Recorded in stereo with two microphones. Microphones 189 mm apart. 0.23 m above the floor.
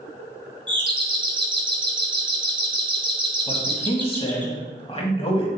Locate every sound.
0.7 s a doorbell: 25° right (ahead or behind), 1.6 m
3.5 s a man speaking: 30° left (ahead or behind), 1.7 m